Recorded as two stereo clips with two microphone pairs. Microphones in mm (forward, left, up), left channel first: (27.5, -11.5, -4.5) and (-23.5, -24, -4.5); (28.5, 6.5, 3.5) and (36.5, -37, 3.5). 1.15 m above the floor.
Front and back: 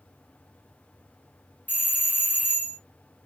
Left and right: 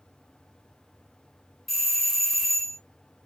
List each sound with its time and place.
1.7 s a doorbell: 20° left, 0.5 m